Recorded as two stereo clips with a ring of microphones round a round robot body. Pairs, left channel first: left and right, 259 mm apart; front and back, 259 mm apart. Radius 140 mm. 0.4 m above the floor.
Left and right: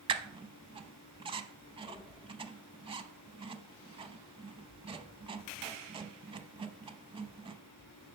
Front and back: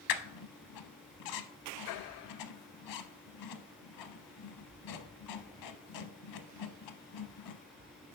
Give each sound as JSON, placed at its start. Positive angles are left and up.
{"t": 0.1, "sound": "a squeak", "azimuth_deg": -20, "distance_m": 0.6}